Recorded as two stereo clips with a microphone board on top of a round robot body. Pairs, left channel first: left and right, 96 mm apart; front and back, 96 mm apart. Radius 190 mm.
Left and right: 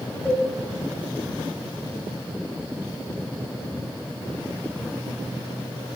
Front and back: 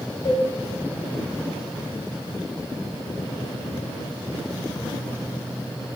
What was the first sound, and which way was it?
A cowbell, 10° left.